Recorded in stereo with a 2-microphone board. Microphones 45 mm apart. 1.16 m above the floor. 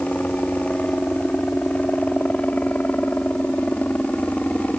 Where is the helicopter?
35° left (ahead or behind).